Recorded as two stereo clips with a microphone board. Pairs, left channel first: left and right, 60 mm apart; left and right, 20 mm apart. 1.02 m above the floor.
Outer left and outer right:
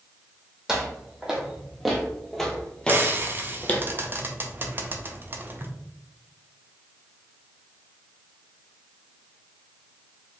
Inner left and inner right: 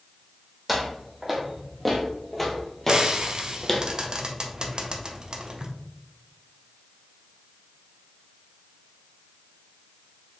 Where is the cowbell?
No cowbell in this recording.